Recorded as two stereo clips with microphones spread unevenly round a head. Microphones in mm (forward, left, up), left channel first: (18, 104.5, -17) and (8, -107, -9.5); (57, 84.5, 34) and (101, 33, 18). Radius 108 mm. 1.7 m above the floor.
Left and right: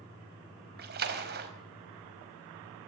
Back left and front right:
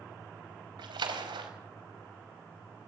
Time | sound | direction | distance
0.8 | a splash | 50° right | 4.5 m